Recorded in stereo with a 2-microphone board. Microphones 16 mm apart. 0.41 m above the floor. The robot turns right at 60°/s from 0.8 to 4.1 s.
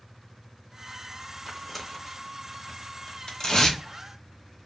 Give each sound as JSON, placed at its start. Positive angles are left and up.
{"t": 1.5, "sound": "tearing paper", "side_deg": 10, "distance_m": 0.7}